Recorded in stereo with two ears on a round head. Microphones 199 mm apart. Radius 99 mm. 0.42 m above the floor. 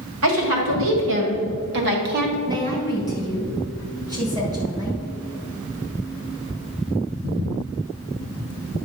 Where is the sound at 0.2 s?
70° right (ahead or behind), 2.5 m; by 2.4 s 45° right (ahead or behind), 1.5 m.